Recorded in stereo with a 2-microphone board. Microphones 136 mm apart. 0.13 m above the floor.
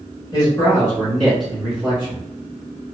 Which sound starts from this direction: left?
A man speaking, at 0.3 s.